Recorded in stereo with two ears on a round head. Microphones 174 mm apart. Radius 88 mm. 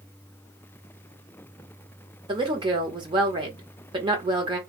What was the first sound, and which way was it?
A woman speaking, 25° right (ahead or behind).